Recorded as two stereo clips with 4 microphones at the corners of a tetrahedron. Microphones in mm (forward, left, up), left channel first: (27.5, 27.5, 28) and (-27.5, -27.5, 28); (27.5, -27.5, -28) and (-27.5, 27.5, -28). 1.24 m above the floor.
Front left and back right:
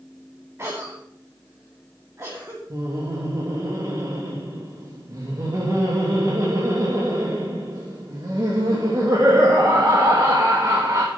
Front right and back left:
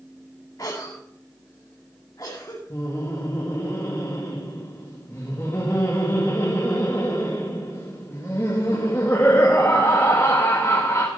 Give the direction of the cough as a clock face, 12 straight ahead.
3 o'clock.